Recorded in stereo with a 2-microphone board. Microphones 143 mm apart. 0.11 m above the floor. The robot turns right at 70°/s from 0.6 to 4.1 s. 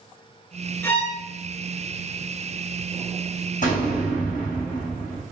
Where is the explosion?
65° left, 3.5 m; by 5.2 s 100° left, 3.5 m.